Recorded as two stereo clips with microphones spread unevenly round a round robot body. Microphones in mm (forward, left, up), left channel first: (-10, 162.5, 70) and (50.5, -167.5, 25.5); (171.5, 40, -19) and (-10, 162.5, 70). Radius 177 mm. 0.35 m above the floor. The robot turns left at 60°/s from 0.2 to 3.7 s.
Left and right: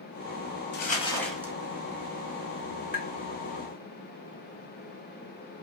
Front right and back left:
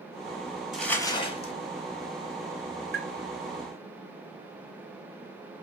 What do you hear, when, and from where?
0.7 s crumpling: 40° left, 0.9 m; by 1.5 s 10° right, 0.9 m
2.9 s tapping: 160° right, 0.5 m; by 3.1 s 170° right, 0.5 m